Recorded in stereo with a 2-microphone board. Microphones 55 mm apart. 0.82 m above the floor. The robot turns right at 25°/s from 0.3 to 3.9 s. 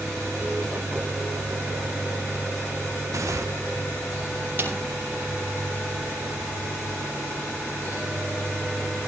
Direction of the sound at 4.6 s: 35° right (ahead or behind).